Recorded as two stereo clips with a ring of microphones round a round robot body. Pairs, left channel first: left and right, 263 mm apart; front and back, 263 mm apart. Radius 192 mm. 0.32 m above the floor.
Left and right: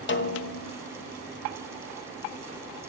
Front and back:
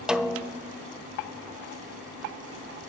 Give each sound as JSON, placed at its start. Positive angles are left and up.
{"t": 0.1, "sound": "a snare drum", "azimuth_deg": 95, "distance_m": 0.8}